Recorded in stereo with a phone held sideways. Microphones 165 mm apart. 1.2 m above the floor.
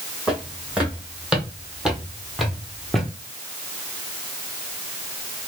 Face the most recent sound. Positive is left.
turn(degrees=5)  # may be behind; listen again after turning